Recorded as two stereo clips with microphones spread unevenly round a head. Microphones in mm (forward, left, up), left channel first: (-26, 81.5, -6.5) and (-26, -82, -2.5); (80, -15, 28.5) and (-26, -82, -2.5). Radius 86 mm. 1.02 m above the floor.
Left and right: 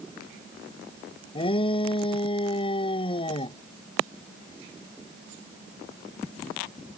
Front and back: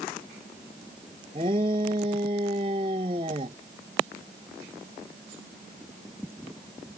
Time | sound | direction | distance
1.4 | a shout | 150° left | ?